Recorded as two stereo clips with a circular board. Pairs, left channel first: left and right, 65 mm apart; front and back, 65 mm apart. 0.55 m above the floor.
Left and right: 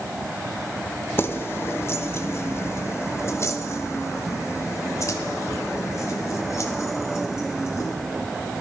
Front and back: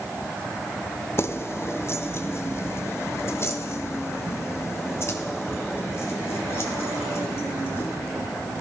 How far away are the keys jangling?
About 1.2 m.